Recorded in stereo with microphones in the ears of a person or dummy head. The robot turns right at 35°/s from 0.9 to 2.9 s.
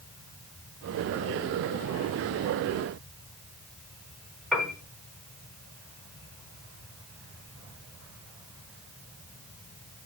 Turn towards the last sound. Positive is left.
turn(degrees=-5)  # may be behind; listen again after turning